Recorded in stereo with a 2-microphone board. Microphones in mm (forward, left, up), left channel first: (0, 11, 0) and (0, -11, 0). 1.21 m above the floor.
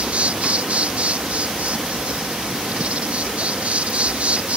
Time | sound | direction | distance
0.0 | an insect | 75° right (ahead or behind) | ?